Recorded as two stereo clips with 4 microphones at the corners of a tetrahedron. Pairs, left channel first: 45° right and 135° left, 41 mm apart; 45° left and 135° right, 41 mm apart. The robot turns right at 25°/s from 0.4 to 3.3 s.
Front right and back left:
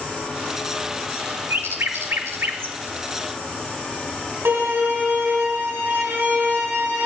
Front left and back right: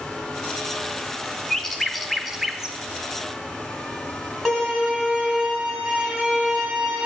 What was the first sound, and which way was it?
A bird, 120° left.